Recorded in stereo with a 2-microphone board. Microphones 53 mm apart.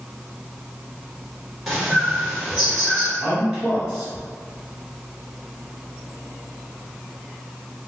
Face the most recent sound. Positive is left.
turn(degrees=-10)  # may be behind; listen again after turning